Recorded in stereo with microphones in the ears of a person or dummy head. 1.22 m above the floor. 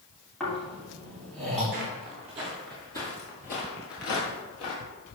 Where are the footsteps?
40° right (ahead or behind), 1.5 m; by 4.8 s 60° left (ahead or behind), 2.5 m.